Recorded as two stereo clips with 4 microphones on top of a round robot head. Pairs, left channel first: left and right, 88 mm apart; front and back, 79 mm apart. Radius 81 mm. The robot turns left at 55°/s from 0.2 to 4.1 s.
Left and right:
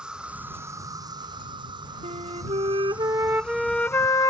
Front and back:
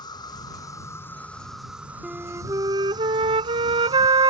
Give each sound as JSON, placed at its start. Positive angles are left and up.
{"t": 0.0, "sound": "an insect", "azimuth_deg": -10}
{"t": 2.0, "sound": "a flute", "azimuth_deg": -90}